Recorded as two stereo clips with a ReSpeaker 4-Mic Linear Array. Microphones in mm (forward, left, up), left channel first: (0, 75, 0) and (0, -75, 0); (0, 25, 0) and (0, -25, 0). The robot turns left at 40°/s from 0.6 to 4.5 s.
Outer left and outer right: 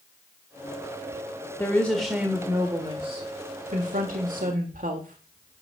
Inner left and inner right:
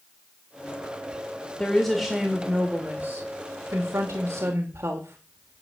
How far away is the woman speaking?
About 1.6 m.